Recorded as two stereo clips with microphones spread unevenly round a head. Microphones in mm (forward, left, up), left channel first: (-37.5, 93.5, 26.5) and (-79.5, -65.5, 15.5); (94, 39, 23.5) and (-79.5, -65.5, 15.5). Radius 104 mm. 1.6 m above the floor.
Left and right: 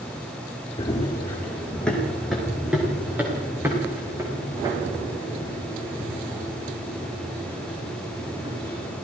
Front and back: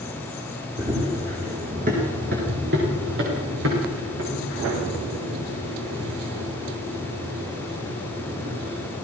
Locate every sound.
0.8 s running footsteps: 140° left, 5 m; by 8.9 s 160° right, 12.5 m